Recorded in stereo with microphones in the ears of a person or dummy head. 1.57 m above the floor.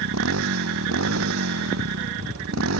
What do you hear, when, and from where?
0.0 s a motorcycle: 85° right